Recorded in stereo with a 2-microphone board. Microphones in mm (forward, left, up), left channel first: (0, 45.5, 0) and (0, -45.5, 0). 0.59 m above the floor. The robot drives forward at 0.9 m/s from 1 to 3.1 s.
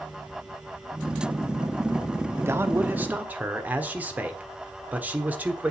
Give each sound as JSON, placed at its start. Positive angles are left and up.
{"t": 2.4, "sound": "a man speaking", "side_deg": -30, "distance_m": 0.8}